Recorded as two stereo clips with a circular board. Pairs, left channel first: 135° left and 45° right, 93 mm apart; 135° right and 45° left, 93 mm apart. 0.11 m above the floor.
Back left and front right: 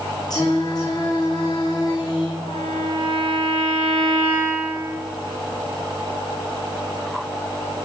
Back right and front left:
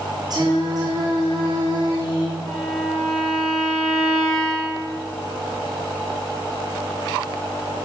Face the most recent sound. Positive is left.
turn(degrees=135)